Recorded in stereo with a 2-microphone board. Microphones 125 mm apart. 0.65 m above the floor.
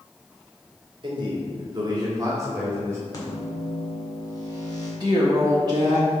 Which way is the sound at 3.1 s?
30° left (ahead or behind).